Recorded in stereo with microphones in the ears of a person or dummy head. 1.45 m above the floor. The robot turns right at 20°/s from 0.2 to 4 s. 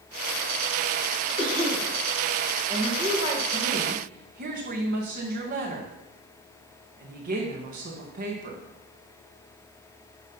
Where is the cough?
30° right (ahead or behind), 3.5 m; by 1.9 s 20° right (ahead or behind), 3.5 m.